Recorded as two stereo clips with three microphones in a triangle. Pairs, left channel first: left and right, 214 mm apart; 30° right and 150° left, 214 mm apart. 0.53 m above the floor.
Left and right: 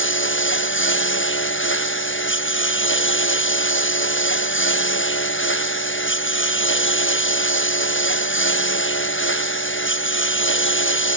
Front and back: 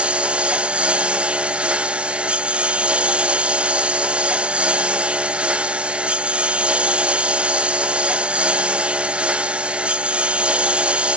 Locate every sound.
0.0 s a lawn mower: 65° left